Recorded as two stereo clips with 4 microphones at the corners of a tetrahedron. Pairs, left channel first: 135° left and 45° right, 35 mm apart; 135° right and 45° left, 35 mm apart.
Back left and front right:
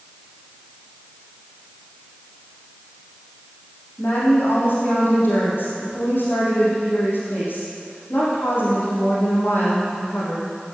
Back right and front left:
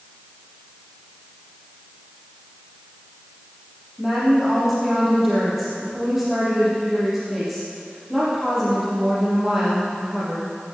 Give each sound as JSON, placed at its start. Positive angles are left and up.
{"t": 4.0, "sound": "a woman speaking", "azimuth_deg": 130, "distance_m": 6.0}